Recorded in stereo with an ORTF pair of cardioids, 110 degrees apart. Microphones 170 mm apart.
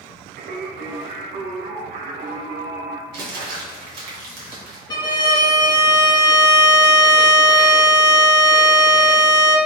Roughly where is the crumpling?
Ahead right.